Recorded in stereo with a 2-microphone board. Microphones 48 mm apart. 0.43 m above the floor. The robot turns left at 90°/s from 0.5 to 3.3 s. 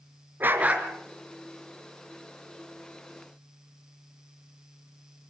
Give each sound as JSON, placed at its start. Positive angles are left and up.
{"t": 0.4, "sound": "a dog barking", "azimuth_deg": -135, "distance_m": 3.0}